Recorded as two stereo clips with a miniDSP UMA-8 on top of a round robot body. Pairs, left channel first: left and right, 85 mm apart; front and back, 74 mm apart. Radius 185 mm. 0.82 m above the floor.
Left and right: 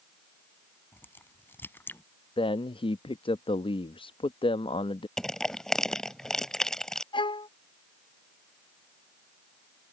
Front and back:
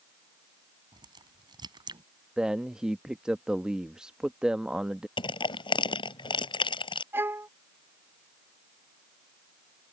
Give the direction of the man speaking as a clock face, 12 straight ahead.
9 o'clock.